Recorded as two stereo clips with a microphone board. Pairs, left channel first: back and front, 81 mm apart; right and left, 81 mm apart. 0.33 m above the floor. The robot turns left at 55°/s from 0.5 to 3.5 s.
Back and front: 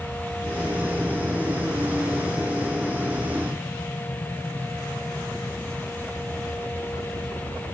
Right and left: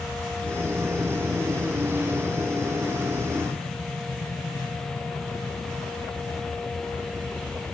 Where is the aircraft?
35° right; by 7.8 s 175° left.